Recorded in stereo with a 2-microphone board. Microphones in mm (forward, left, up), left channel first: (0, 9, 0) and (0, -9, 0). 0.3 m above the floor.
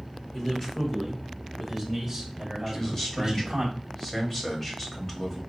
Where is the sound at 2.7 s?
15° left (ahead or behind), 1.2 m.